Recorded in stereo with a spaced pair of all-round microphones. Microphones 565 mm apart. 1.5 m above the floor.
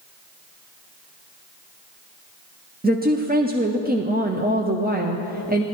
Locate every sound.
2.8 s a woman speaking: 15° right (ahead or behind), 0.6 m